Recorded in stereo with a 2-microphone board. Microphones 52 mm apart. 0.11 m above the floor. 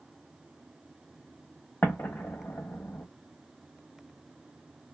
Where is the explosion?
45° left (ahead or behind), 0.7 m.